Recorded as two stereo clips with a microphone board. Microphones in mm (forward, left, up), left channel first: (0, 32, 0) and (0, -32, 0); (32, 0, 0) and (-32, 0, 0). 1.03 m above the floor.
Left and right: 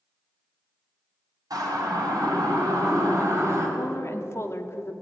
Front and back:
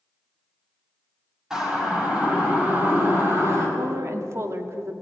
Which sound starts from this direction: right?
A siren, at 1.5 s.